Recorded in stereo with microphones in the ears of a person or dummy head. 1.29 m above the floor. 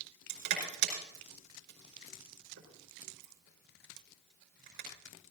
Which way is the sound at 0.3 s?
60° right (ahead or behind).